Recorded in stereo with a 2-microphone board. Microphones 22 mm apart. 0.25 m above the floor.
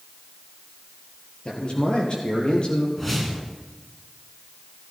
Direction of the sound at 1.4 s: 50° left (ahead or behind).